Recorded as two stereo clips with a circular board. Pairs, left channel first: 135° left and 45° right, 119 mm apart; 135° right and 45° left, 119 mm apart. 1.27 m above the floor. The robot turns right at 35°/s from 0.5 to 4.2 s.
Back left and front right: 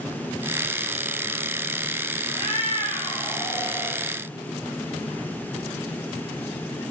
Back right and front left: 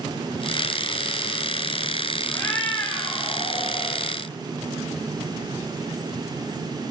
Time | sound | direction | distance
2.3 | a cat meowing | 155° left | 0.8 m